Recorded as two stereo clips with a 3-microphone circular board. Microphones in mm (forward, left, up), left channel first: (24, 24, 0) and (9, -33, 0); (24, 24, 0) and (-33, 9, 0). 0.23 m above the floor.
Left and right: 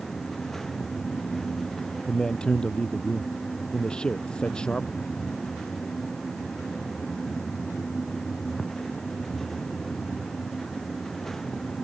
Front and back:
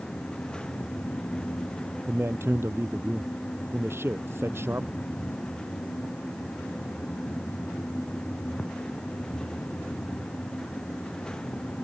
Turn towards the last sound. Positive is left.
turn(degrees=150)